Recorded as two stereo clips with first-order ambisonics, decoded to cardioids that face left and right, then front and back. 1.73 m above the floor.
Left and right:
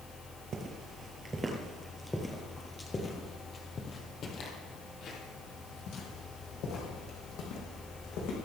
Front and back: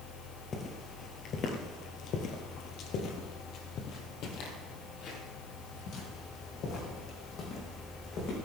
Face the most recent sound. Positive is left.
turn(degrees=55)